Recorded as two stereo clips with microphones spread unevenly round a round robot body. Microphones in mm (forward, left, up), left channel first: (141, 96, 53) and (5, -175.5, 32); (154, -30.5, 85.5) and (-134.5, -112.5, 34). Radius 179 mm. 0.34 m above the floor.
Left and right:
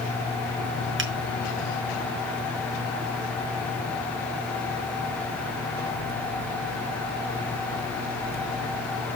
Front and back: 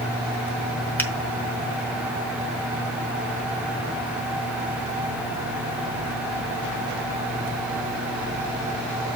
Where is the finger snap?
70° right, 1.9 m.